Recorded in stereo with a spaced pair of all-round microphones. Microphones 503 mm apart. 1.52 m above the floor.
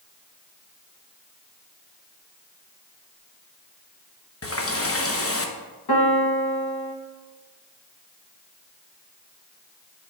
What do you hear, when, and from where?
4.4 s a running tap: 25° left (ahead or behind), 0.9 m
5.9 s a piano: 45° left (ahead or behind), 1.2 m